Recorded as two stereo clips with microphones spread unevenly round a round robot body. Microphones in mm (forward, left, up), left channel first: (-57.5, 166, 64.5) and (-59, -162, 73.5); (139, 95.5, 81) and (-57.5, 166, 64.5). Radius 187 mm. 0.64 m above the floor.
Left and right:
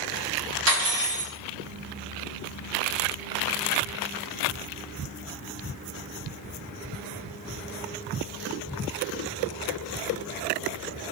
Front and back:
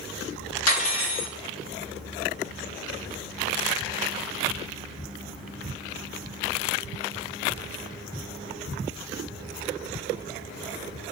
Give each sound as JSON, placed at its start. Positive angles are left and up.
{"t": 0.7, "sound": "cutlery clinking", "azimuth_deg": -35, "distance_m": 1.4}